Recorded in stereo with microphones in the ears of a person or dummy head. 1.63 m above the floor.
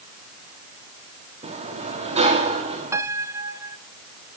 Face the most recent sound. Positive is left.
turn(degrees=-15)  # may be behind; listen again after turning